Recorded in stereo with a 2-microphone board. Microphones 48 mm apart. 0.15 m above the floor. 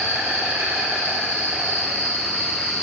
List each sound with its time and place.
0.0 s an insect: 70° right (ahead or behind), 2.5 m